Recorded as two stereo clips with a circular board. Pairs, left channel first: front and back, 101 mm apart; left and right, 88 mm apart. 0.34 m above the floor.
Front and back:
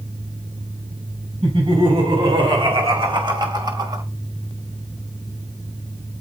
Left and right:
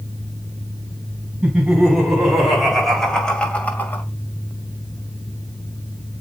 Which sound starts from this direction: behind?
Laughter, at 1.4 s.